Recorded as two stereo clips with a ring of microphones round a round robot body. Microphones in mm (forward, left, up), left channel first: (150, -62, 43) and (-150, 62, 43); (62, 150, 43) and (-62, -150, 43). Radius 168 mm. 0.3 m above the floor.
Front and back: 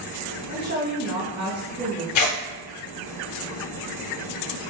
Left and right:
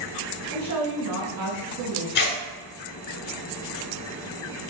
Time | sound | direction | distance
0.5 | a woman speaking | 160° right | 1.7 m
2.1 | tearing paper | 10° left | 0.8 m